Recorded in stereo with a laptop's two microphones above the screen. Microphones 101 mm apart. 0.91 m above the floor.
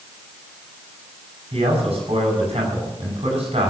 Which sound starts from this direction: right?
A man speaking, at 1.5 s.